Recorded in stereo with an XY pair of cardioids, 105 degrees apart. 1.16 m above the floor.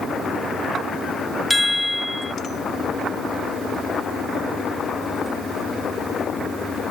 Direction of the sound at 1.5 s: 10° left.